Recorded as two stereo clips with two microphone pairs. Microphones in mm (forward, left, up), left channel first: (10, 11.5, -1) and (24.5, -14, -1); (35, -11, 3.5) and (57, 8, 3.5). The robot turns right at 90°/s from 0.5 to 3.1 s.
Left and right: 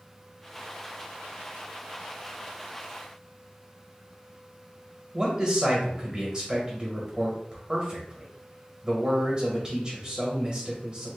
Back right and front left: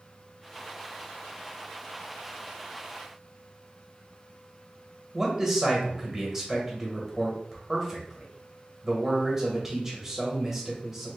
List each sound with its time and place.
5.1 s a man speaking: 15° right, 1.2 m